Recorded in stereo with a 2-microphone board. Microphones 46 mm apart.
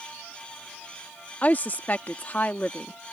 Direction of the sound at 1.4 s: 40° left (ahead or behind).